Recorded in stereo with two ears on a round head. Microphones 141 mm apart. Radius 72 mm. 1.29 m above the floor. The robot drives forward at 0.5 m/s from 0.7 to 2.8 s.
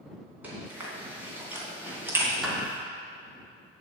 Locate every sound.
0.4 s chewing: 10° right (ahead or behind), 3 m; by 2.3 s 15° right (ahead or behind), 2 m
2.4 s a clap: centre (ahead or behind), 2.5 m